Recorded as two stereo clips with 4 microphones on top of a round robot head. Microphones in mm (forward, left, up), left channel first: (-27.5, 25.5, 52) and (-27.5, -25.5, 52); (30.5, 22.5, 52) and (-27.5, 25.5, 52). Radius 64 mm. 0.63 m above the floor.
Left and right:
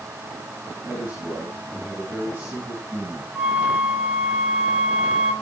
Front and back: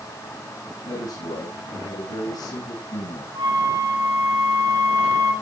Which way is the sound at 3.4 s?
165° right.